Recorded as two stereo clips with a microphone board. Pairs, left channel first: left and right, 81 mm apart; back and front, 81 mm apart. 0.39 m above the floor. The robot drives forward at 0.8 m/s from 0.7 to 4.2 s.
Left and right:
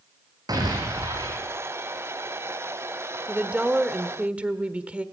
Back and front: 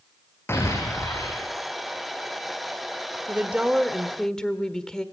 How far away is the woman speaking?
About 1.3 m.